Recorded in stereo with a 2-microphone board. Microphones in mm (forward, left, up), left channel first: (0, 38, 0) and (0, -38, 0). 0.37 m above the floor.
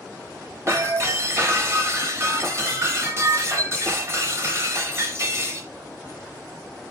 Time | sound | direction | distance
0.7 | breaking glass | 35° right (ahead or behind) | 1.1 m